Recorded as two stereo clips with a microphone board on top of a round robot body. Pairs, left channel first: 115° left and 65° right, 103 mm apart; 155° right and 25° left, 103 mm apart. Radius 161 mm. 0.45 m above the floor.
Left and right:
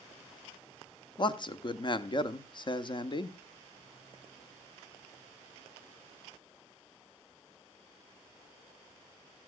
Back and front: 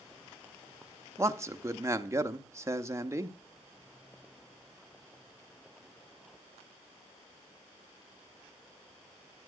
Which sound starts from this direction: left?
A man speaking, at 1.2 s.